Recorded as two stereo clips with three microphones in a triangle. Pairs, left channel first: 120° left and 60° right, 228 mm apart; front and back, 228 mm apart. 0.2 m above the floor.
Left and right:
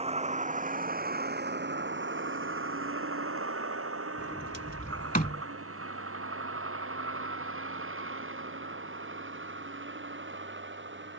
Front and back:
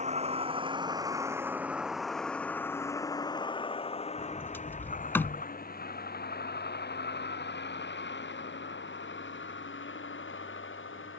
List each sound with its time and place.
0.0 s a vehicle: 120° right; by 11.2 s 30° right
4.2 s a sliding door: 80° left